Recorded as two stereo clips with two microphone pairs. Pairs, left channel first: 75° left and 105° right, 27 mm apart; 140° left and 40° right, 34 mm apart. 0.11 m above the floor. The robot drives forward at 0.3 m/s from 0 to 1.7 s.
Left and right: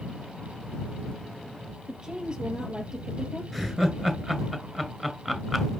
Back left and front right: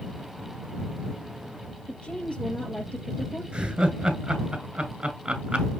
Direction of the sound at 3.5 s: Straight ahead.